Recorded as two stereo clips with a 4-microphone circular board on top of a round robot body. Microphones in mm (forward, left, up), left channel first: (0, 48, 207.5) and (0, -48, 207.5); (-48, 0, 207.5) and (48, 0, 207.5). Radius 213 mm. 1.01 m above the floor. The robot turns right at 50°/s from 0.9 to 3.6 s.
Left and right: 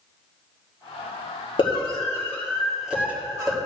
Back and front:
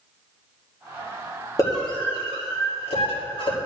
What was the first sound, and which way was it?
A scream, 125° left.